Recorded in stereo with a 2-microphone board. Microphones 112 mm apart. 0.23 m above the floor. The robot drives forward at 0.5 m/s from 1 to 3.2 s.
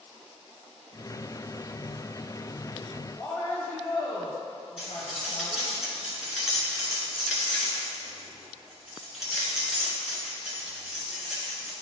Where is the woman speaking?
25° left (ahead or behind), 1.1 m; by 5.7 s 20° left (ahead or behind), 1.1 m.